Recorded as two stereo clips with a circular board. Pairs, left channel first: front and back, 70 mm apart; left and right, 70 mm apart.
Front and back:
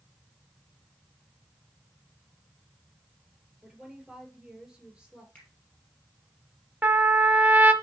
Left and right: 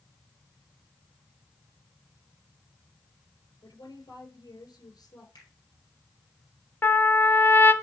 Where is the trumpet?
130° left, 0.7 m.